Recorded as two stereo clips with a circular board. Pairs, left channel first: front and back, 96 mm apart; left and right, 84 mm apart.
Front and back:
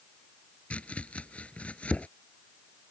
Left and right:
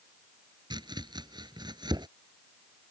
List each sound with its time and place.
0.7 s chopping: 75° right